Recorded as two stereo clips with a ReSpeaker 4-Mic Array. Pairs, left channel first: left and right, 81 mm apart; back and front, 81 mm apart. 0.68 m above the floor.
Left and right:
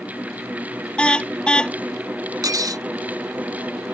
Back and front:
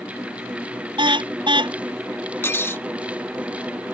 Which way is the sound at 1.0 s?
10° left.